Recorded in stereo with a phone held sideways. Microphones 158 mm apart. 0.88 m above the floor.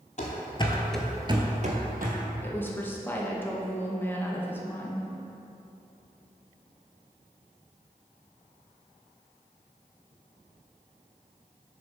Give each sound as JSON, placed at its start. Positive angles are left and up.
{"t": 0.2, "sound": "running footsteps", "side_deg": 50, "distance_m": 1.5}
{"t": 2.4, "sound": "a woman speaking", "side_deg": 15, "distance_m": 0.9}